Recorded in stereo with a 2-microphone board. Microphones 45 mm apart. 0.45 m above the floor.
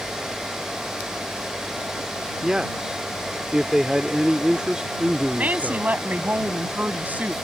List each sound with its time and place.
2.4 s a man speaking: 15° right (ahead or behind)
5.4 s a woman speaking: 40° right (ahead or behind)